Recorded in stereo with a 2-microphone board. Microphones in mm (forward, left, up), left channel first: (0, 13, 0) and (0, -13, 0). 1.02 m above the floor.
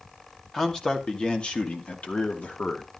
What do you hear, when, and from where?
0.5 s a man speaking: 25° left (ahead or behind), 2.5 m; by 2.9 s 75° left (ahead or behind), 2.5 m